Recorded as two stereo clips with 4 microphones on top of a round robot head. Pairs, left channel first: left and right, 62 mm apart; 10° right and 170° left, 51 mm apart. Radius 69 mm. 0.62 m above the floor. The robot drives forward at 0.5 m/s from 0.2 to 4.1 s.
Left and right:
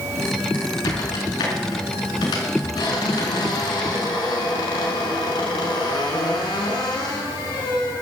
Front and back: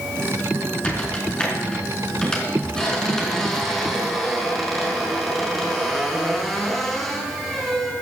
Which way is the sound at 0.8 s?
55° left.